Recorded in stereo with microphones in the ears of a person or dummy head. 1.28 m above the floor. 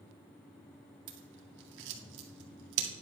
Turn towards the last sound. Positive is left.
turn(degrees=-60)  # may be behind; listen again after turning